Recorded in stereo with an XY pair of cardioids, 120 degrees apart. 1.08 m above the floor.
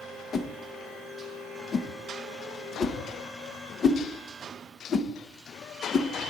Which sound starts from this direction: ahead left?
A whoosh, at 0.3 s.